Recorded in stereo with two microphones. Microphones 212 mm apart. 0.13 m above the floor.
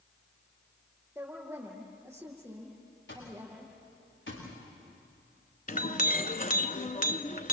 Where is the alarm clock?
60° left (ahead or behind), 9 m.